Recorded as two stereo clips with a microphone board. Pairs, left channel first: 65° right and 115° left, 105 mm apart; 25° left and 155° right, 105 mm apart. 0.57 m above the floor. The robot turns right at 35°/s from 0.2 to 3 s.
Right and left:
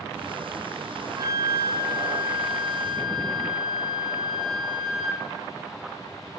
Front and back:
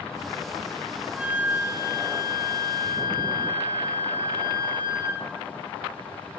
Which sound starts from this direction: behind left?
A flute, at 1.1 s.